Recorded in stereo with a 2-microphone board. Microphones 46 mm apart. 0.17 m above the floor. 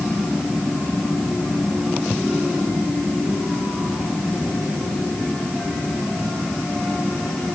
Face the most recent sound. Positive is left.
No sound to turn to.